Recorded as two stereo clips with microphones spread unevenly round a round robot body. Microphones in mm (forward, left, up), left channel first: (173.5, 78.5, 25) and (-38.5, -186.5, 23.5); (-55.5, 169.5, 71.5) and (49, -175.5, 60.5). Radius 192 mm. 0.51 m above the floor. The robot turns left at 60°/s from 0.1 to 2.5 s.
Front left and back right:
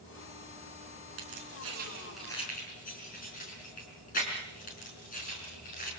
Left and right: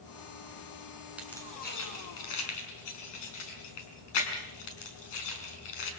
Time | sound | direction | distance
1.2 | keys jangling | 160° right | 5 m